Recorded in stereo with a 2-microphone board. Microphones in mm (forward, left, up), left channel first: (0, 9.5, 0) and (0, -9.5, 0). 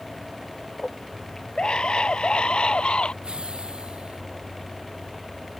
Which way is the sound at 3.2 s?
55° right (ahead or behind).